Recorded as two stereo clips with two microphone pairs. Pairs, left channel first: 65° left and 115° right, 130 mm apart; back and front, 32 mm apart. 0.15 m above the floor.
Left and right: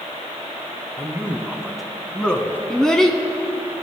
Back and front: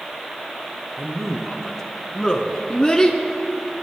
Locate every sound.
1.0 s a man speaking: 65° right, 1.2 m; by 2.6 s 130° left, 1.4 m
2.7 s a child speaking: 140° left, 0.7 m